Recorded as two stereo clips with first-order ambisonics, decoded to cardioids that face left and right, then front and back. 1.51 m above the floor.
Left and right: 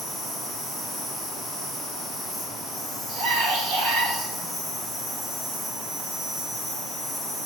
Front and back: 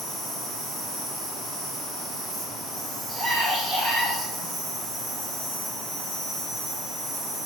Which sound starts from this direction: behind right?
A scream, at 3.1 s.